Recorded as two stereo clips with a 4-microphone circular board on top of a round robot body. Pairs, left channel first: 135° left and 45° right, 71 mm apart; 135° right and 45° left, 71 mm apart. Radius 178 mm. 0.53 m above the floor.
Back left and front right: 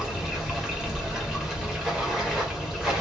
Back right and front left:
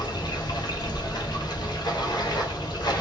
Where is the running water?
130° right, 1.4 m.